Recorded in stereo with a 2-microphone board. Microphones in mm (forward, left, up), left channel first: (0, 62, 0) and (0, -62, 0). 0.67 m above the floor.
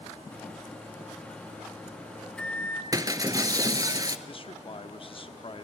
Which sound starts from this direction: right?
Breaking glass, at 2.9 s.